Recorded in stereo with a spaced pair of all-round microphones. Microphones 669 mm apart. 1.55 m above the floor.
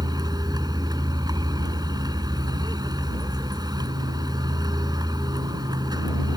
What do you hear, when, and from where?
0.0 s a vehicle: 5° right (ahead or behind)